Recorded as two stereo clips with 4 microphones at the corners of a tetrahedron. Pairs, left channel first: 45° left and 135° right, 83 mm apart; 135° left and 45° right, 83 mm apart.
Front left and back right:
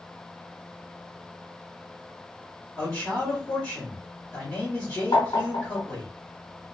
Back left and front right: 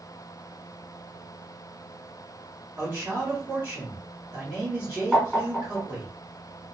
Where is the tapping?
50° left, 1.3 m.